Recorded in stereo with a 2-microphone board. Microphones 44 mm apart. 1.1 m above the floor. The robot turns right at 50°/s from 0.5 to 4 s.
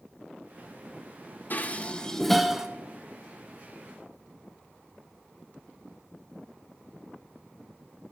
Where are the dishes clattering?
45° left (ahead or behind), 0.5 m; by 2.7 s 15° right (ahead or behind), 0.5 m.